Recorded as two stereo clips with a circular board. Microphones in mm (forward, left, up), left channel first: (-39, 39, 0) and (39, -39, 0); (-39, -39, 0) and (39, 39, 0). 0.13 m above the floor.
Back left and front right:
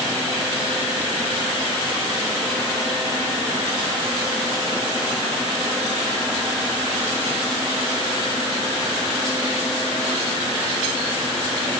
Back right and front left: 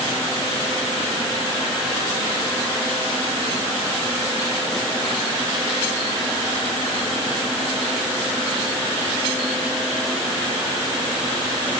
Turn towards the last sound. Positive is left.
No sound to turn to.